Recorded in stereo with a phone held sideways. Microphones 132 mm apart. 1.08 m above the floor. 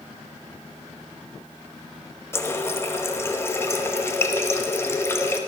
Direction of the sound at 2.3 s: 20° left (ahead or behind).